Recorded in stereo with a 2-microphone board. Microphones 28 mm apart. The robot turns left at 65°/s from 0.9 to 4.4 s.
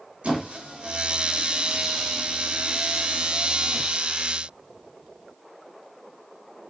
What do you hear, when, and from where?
0.2 s a squeak: 45° right (ahead or behind), 1.2 m; by 3.8 s 40° left (ahead or behind), 1.2 m